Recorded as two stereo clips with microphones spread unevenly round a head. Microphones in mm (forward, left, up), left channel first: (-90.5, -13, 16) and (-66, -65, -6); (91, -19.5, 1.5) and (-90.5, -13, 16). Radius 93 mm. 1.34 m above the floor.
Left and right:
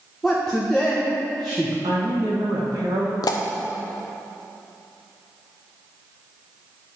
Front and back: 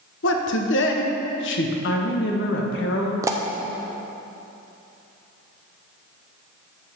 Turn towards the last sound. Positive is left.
turn(degrees=105)